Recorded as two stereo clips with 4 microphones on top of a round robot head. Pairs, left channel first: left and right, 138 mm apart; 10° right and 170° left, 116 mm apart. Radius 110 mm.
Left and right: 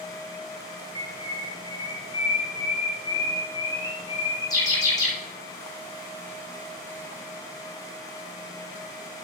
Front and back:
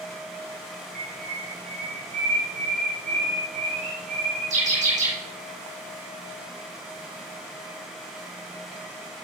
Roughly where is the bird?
Behind left.